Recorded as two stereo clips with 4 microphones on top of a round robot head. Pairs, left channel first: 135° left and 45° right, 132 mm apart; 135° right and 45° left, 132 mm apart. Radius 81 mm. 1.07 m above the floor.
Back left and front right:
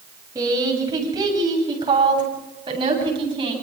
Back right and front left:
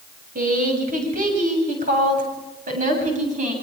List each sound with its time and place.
0.3 s a woman speaking: 20° left, 7.5 m; by 3.5 s 10° left, 9 m